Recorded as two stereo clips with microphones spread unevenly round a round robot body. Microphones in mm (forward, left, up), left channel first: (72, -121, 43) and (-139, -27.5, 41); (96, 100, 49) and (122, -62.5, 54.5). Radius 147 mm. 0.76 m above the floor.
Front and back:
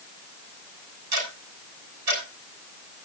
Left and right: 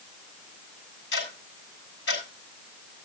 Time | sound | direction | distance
1.1 | ticking | 135° left | 6 m